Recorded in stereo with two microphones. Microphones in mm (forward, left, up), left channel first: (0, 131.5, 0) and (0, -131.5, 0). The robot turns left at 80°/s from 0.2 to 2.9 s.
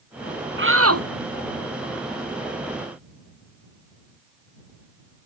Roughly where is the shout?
Ahead right.